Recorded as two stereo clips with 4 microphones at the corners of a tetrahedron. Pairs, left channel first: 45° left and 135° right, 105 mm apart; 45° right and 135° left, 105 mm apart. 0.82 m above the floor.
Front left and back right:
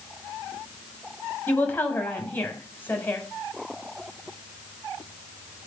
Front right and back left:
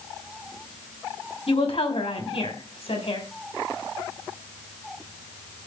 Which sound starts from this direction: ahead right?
A woman speaking, at 1.5 s.